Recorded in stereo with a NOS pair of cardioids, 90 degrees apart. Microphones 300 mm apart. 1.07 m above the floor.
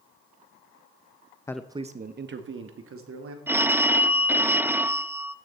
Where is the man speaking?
10° left, 0.5 m; by 3.4 s 50° right, 2.5 m.